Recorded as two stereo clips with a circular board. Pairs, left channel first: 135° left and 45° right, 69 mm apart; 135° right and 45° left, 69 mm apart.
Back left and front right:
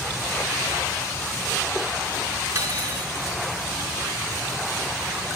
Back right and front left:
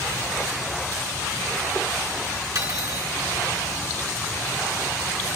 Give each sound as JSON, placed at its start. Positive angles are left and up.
{"t": 2.5, "sound": "cutlery clinking", "azimuth_deg": 10, "distance_m": 4.0}